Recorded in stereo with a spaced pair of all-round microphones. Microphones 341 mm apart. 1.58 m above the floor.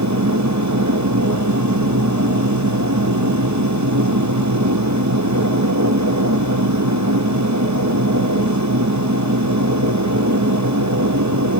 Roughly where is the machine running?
Right.